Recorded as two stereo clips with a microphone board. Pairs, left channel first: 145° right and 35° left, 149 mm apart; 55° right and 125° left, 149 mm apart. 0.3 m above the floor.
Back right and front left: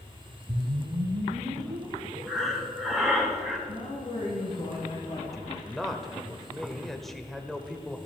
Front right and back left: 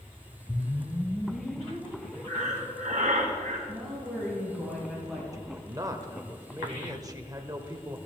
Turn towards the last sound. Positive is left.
turn(degrees=130)